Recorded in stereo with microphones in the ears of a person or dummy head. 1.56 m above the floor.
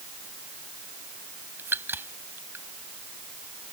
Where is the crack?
15° right (ahead or behind).